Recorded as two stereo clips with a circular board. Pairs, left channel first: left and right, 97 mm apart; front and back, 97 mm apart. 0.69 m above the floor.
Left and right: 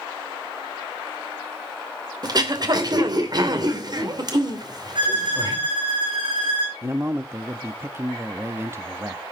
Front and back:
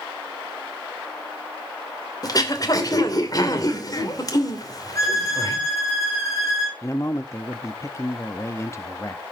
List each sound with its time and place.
2.2 s throat clearing: 50° right, 2.5 m
5.0 s a violin: 60° right, 9 m
6.8 s a man speaking: 40° right, 0.7 m